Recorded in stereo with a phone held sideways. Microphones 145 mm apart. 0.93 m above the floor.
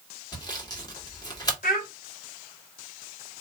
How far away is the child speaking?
About 2 m.